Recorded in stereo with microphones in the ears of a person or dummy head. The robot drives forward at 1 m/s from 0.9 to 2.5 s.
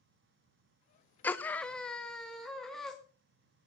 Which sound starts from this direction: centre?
A scream, at 1.2 s.